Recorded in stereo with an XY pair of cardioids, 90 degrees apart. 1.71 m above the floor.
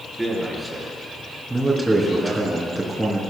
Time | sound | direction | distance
0.2 | a man speaking | 15° right | 4.5 m
1.5 | a man speaking | 15° right | 3 m